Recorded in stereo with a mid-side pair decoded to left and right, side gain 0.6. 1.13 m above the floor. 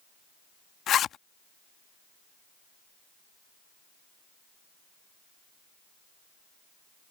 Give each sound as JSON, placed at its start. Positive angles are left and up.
{"t": 0.9, "sound": "a zipper", "azimuth_deg": 50}